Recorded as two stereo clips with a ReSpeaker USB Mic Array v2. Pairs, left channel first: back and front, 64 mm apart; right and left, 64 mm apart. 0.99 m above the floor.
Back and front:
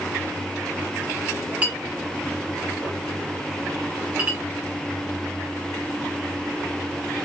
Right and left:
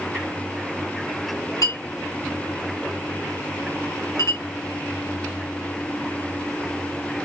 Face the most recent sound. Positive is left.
turn(degrees=-70)